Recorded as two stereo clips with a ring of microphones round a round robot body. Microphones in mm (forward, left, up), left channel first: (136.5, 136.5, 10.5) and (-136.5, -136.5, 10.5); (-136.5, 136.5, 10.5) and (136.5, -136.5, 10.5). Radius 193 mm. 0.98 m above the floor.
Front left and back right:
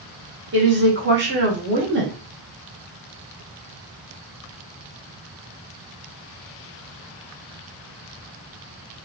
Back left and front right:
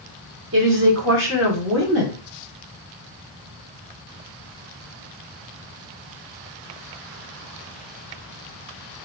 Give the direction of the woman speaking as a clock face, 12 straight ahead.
3 o'clock.